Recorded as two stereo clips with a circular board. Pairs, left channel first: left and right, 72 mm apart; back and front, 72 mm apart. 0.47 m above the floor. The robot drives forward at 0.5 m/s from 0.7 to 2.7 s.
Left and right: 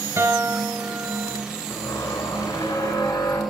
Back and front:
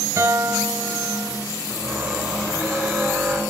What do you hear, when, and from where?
0.2 s a guitar: 45° right, 1.6 m; by 1.4 s 55° right, 1.4 m
1.7 s a squeak: 90° left, 4.5 m; by 3.4 s 95° left, 4.5 m